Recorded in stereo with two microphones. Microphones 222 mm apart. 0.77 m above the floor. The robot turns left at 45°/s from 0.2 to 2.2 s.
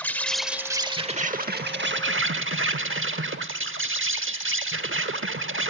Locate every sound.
0.0 s an insect: 10° left, 0.8 m; by 5.7 s 80° right, 0.8 m